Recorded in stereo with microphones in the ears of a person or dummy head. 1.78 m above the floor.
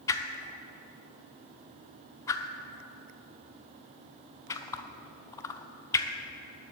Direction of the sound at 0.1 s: 20° left (ahead or behind).